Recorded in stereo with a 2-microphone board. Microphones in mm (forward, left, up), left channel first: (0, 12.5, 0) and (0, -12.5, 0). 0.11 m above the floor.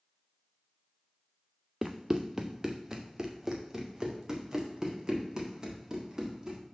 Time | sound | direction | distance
1.8 | running footsteps | 15° right (ahead or behind) | 0.7 m